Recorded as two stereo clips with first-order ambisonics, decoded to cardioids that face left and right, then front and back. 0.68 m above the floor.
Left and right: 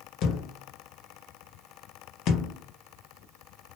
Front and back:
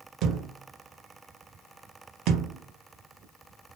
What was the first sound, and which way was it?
A thud, 140° left.